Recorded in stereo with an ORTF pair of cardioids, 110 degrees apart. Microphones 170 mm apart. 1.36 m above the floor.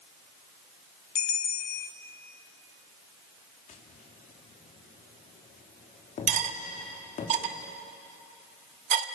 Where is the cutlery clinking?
50° right, 1.6 m.